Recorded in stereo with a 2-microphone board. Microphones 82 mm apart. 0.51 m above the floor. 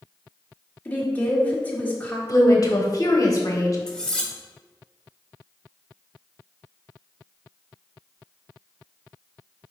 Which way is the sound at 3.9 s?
10° left (ahead or behind).